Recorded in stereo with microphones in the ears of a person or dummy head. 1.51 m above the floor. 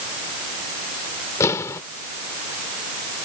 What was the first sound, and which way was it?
An explosion, 10° left (ahead or behind).